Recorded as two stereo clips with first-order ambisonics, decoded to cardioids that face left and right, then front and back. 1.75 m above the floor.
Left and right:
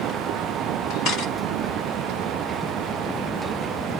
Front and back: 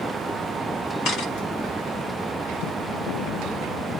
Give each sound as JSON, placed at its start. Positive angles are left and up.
{"t": 1.1, "sound": "a camera shutter", "azimuth_deg": 40, "distance_m": 7.5}